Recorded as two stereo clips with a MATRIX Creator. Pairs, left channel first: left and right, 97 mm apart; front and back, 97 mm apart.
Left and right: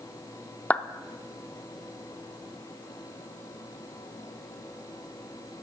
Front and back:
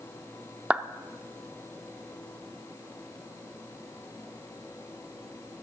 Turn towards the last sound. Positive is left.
turn(degrees=130)